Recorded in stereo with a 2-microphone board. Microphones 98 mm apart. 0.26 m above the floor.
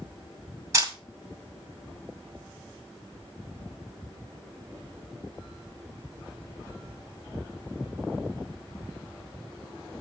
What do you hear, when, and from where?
0.7 s a camera shutter: 30° right (ahead or behind), 2.0 m